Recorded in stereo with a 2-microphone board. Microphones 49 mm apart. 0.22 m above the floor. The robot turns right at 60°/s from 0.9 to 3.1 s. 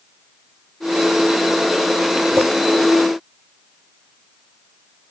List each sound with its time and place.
2.4 s a clink: 70° right (ahead or behind), 2.5 m; by 2.5 s 65° right (ahead or behind), 2.5 m